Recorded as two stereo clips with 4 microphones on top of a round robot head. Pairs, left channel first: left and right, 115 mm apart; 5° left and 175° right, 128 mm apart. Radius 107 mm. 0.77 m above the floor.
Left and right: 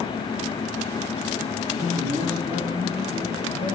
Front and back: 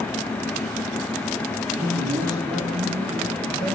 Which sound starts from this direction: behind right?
A man speaking, at 1.7 s.